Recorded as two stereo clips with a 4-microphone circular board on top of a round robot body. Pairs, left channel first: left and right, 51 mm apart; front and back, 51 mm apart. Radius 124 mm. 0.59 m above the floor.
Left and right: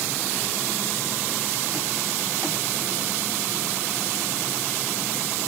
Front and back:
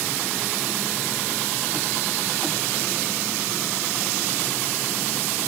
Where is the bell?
No bell in this recording.